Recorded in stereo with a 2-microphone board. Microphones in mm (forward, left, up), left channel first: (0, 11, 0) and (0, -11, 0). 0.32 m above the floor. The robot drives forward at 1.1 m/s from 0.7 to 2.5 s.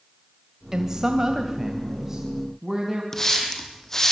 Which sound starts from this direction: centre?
A woman speaking, at 0.7 s.